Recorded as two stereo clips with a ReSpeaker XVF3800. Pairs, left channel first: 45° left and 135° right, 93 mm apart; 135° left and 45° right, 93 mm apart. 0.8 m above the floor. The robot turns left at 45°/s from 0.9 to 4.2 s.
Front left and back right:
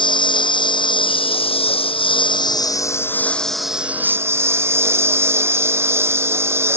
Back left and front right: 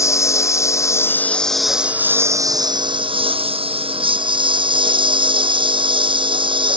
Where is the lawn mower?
75° left; by 6.8 s 70° right.